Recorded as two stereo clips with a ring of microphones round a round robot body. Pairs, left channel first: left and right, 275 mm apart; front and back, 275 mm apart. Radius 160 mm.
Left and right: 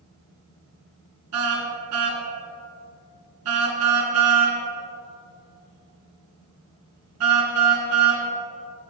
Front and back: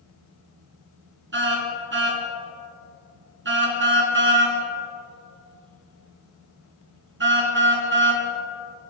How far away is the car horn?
About 3 m.